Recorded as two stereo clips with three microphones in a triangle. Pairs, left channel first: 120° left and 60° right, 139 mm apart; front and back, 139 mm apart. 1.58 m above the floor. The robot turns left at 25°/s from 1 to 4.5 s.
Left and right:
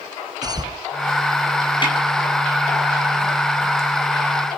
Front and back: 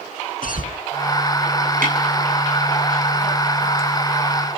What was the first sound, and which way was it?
A cough, 5° left.